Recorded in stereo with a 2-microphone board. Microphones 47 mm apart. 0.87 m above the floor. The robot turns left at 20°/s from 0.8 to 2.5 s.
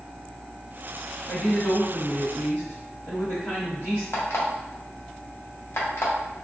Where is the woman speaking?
55° left (ahead or behind), 1.5 m; by 4.0 s 60° left (ahead or behind), 1.5 m.